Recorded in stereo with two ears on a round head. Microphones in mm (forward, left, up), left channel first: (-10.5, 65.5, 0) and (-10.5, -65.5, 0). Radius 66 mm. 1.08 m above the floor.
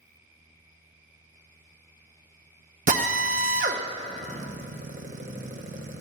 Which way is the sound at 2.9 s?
50° right (ahead or behind).